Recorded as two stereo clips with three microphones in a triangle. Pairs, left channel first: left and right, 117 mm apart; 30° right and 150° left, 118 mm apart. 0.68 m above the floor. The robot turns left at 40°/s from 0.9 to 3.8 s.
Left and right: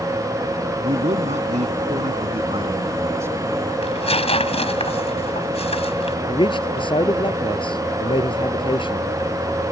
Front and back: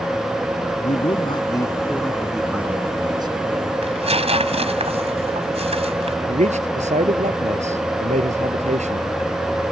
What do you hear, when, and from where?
0.8 s a man speaking: 65° right; by 3.7 s 175° right
3.8 s tearing paper: 120° left
6.3 s a man speaking: 135° left